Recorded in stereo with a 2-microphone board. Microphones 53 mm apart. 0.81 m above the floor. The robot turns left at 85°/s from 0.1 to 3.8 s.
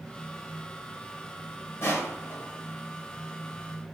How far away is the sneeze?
No sneeze in this recording.